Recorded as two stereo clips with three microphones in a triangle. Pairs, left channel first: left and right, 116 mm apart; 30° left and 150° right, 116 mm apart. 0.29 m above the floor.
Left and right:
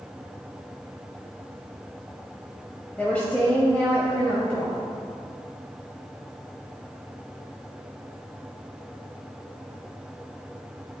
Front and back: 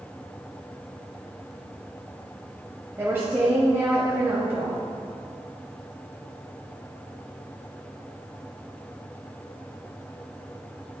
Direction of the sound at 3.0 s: 160° left.